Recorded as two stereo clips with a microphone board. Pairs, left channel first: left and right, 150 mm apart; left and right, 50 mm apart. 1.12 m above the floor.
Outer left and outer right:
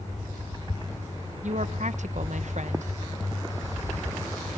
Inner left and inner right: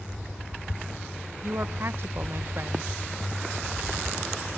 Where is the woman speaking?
55° right (ahead or behind), 0.8 m.